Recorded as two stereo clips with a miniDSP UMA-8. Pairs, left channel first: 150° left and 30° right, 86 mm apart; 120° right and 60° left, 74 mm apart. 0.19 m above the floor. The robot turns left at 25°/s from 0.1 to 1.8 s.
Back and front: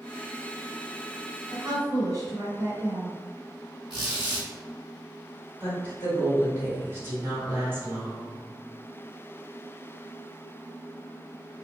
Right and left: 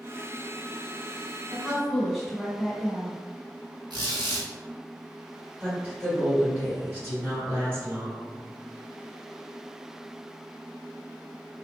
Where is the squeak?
55° left, 2.0 m.